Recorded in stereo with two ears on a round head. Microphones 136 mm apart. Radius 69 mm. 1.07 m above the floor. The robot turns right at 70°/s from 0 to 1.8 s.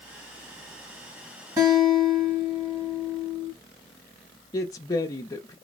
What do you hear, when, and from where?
1.6 s a guitar: 25° right (ahead or behind), 1.7 m; by 3.5 s 40° right (ahead or behind), 1.7 m
4.5 s a woman speaking: 25° left (ahead or behind), 0.5 m